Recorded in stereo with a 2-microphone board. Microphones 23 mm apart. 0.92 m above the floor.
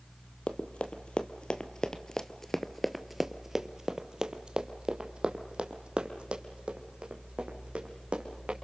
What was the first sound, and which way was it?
Running footsteps, 60° left (ahead or behind).